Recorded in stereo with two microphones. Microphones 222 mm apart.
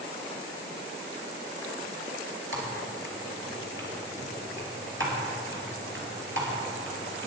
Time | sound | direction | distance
2.5 | typing on a keyboard | 65° right (ahead or behind) | 3 m